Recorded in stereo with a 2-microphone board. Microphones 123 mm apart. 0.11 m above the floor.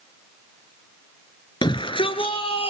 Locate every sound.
1.6 s a shout: 35° left (ahead or behind), 1.5 m; by 2.7 s 45° left (ahead or behind), 2 m